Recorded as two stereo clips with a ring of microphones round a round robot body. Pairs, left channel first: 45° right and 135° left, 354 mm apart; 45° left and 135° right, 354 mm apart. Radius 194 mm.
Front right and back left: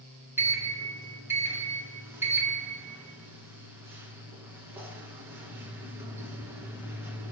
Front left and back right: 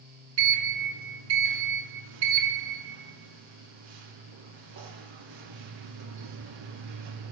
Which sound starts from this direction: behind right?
A sliding door, at 0.4 s.